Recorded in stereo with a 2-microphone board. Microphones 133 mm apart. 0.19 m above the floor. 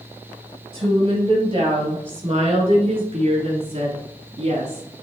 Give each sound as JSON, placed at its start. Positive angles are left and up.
{"t": 0.7, "sound": "a woman speaking", "side_deg": -40, "distance_m": 3.5}